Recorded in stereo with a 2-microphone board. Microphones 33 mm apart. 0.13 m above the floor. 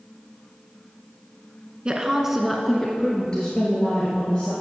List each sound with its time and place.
1.9 s a woman speaking: 30° right (ahead or behind), 1.1 m; by 4.5 s 35° left (ahead or behind), 3 m